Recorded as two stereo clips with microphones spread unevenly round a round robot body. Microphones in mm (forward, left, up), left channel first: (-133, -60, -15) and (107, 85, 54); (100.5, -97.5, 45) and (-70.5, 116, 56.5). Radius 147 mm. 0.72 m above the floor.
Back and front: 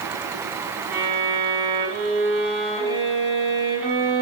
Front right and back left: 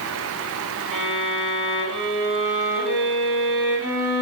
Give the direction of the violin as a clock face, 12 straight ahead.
7 o'clock.